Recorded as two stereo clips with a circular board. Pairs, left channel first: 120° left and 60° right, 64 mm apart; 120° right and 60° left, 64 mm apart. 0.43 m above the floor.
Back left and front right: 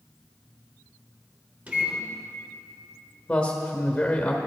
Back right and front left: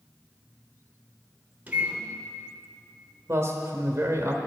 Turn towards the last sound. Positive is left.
turn(degrees=50)